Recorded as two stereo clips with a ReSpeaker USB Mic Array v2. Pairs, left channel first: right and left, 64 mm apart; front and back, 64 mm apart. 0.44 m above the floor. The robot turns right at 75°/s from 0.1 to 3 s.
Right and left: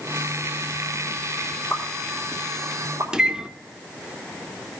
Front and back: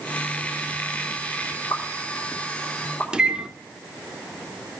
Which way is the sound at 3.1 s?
140° left.